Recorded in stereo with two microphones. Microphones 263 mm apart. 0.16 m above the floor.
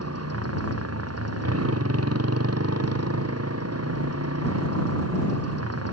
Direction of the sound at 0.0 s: 65° right (ahead or behind).